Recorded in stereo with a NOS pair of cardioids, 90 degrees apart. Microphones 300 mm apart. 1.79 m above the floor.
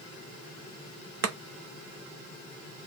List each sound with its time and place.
1.2 s chopping: 50° right, 0.7 m